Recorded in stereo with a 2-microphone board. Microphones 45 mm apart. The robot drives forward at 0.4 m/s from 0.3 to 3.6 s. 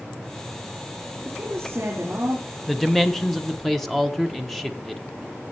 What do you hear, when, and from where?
1.2 s a woman speaking: 75° right (ahead or behind), 3 m; by 2.5 s 65° right (ahead or behind), 3.5 m
2.7 s a man speaking: 5° left (ahead or behind), 0.8 m; by 5.0 s centre (ahead or behind), 1.0 m